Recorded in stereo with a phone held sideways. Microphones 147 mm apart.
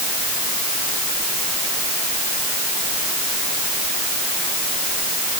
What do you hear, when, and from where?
Only background noise.